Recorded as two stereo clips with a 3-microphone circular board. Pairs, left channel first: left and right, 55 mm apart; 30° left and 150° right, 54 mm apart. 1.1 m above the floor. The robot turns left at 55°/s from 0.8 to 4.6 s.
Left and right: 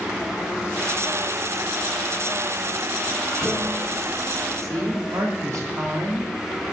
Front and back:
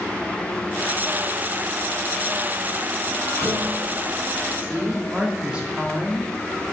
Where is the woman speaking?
80° right, 2 m.